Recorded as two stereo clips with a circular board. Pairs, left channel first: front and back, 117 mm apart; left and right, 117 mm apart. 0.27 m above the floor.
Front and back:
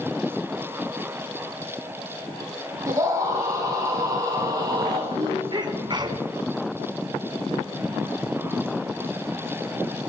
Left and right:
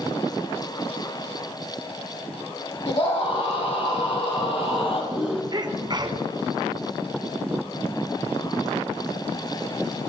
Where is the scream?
120° left, 9.5 m; by 5.4 s 130° left, 7.5 m.